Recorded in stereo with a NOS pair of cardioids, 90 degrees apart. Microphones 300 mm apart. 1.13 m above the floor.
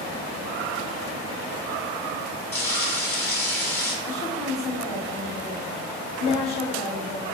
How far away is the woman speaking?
About 1.6 m.